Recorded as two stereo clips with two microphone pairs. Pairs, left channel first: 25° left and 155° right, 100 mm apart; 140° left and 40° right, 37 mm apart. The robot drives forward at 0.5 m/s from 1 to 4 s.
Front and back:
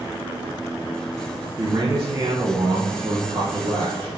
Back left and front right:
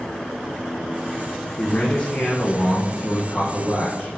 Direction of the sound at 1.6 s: 170° left.